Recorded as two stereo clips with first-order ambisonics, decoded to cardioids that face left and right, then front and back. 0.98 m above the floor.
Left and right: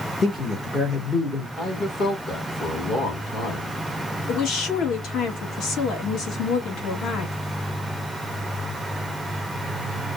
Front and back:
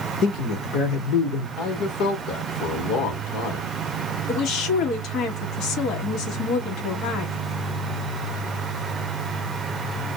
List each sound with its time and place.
0.2 s a man speaking: 25° left, 1.0 m
1.6 s a man speaking: 30° left, 1.2 m
4.3 s a woman speaking: 45° left, 1.1 m